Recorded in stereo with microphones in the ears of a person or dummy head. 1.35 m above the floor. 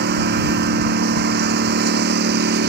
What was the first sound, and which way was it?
A lawn mower, 60° right (ahead or behind).